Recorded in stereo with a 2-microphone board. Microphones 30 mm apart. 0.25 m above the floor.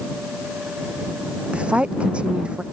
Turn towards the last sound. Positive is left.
turn(degrees=-45)  # may be behind; listen again after turning